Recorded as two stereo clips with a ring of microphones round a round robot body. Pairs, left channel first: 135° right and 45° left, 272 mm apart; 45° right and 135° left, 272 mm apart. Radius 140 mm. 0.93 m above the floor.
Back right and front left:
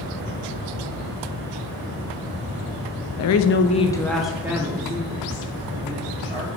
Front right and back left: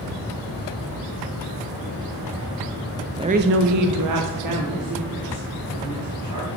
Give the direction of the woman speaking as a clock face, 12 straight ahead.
5 o'clock.